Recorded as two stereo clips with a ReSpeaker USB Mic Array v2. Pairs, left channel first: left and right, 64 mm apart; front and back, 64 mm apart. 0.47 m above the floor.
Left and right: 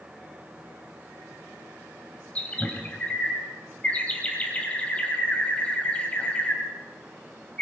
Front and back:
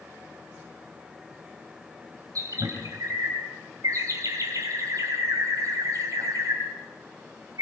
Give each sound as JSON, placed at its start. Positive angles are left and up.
{"t": 2.4, "sound": "a bird", "azimuth_deg": 160, "distance_m": 3.0}